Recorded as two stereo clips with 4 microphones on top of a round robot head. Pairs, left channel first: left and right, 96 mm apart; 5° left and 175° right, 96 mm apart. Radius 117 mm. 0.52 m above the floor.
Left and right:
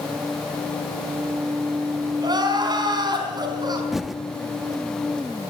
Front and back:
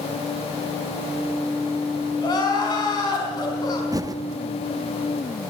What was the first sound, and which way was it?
Crying, 45° right.